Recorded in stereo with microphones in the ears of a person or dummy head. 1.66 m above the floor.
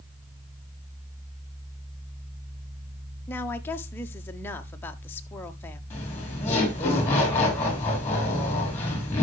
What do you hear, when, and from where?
3.3 s a woman speaking: 10° left (ahead or behind), 1.1 m
5.9 s laughter: 15° left (ahead or behind), 4.5 m